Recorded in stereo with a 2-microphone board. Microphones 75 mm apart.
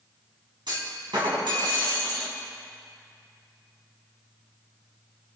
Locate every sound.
0.7 s a clunk: 80° right, 3 m